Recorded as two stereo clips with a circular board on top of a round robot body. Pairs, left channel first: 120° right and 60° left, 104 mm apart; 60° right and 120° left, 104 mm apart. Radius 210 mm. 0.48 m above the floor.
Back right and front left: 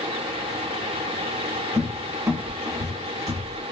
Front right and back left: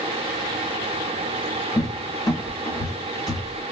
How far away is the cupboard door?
About 0.7 m.